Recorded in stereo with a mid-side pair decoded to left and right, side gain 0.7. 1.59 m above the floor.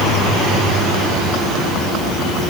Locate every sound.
Only background noise.